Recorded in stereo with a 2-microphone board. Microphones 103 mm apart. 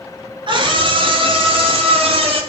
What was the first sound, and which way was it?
A scream, 50° right (ahead or behind).